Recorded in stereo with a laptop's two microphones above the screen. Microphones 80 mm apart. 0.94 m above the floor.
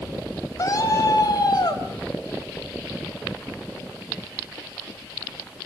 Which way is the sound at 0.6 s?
45° left (ahead or behind).